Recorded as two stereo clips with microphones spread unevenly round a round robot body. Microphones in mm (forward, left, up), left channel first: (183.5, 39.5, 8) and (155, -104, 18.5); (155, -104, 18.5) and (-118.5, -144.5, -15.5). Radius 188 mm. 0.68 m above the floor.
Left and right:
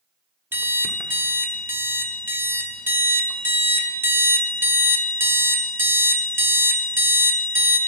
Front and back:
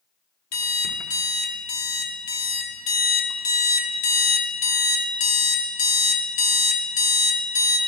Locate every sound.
0.5 s an alarm clock: 25° right, 1.0 m